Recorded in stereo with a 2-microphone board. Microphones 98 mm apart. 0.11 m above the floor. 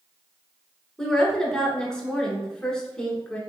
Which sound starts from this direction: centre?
A woman speaking, at 1.0 s.